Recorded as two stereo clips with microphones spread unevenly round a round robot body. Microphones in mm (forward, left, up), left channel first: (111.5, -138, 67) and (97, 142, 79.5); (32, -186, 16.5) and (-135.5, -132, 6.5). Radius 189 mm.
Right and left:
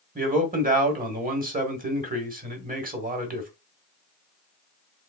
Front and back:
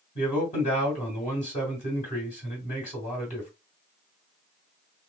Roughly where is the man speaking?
Ahead left.